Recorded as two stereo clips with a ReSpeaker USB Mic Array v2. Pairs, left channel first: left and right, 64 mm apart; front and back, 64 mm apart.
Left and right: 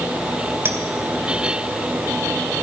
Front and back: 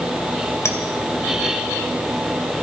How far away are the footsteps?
I don't hear footsteps.